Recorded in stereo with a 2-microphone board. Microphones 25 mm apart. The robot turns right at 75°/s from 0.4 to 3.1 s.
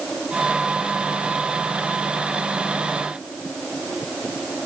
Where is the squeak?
No squeak in this recording.